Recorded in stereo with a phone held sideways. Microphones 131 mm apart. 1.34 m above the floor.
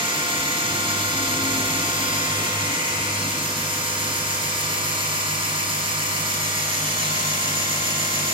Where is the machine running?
40° right (ahead or behind), 2.5 m.